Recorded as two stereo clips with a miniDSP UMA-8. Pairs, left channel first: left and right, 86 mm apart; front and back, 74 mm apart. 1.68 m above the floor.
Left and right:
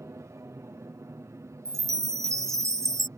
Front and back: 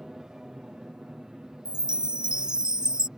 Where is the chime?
105° right.